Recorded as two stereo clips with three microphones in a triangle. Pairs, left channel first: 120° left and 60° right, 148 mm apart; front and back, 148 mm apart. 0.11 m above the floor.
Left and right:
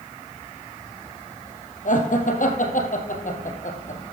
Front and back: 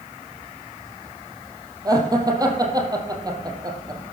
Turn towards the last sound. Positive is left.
turn(degrees=120)